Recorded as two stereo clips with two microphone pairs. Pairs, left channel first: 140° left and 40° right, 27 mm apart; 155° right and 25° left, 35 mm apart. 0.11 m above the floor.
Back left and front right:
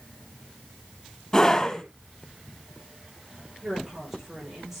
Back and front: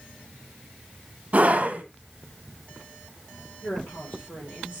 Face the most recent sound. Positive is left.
turn(degrees=-120)